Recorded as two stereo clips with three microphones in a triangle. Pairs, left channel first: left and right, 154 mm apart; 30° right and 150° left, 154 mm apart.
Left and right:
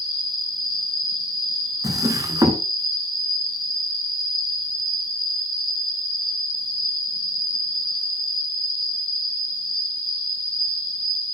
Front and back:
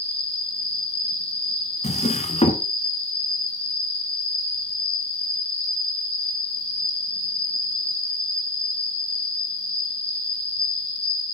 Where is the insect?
115° right, 4 m.